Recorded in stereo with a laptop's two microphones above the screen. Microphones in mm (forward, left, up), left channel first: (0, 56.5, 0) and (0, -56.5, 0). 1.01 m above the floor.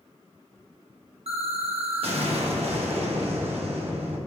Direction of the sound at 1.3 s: 60° right (ahead or behind).